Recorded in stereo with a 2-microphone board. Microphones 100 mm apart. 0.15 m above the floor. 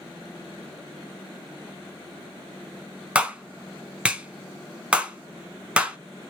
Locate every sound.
3.1 s a clap: 10° right (ahead or behind), 0.8 m